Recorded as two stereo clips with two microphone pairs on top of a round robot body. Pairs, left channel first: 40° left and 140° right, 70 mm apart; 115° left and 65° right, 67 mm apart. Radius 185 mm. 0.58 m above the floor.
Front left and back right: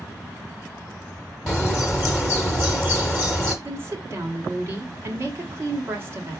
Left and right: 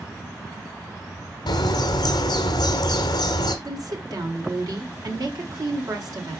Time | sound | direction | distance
1.5 | a bird | 125° left | 0.7 m
3.6 | a woman speaking | 85° right | 2.5 m